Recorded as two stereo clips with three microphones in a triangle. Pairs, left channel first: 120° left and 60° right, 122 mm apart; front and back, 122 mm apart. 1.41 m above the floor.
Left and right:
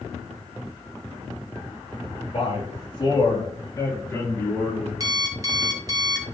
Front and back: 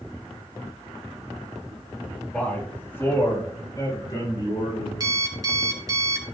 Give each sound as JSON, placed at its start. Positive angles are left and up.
{"t": 2.3, "sound": "a man speaking", "azimuth_deg": 80, "distance_m": 3.0}
{"t": 5.0, "sound": "an alarm clock", "azimuth_deg": -120, "distance_m": 2.0}